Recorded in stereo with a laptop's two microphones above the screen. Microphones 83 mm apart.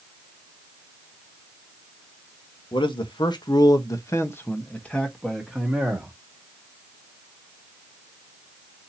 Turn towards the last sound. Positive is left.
turn(degrees=-5)  # may be behind; listen again after turning